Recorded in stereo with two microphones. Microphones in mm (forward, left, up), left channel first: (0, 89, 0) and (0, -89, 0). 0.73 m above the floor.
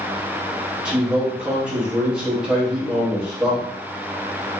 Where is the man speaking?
5° right (ahead or behind), 1.3 m.